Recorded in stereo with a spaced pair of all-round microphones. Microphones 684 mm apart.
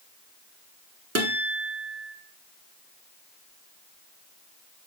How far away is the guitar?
About 0.9 m.